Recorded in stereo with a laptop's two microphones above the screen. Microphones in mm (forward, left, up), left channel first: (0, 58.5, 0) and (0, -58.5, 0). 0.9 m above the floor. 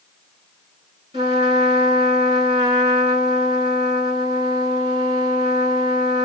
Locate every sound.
1.1 s a trumpet: 40° right (ahead or behind), 4.5 m